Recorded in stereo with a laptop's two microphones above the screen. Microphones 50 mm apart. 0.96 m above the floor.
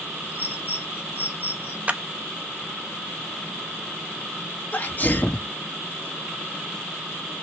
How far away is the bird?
About 1.2 m.